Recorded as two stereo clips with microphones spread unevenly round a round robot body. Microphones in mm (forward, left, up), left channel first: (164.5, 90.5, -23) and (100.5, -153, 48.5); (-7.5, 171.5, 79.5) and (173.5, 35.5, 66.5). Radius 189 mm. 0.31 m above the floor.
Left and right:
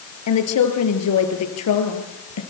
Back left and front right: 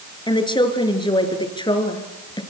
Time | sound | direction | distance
0.3 | a woman speaking | 75° left | 5.5 m